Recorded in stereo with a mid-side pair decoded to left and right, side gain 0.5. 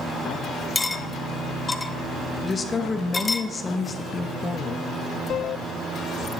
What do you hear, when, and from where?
0.8 s cutlery clinking: 20° left, 0.6 m
2.4 s a woman speaking: 30° left, 0.8 m
5.3 s a squeak: 15° right, 2.5 m